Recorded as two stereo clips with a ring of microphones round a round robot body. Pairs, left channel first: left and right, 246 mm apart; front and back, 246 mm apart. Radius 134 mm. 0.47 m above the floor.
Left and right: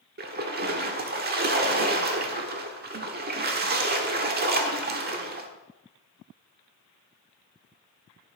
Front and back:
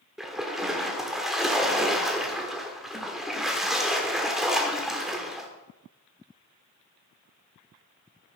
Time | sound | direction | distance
0.2 | a splash | 90° right | 1.3 m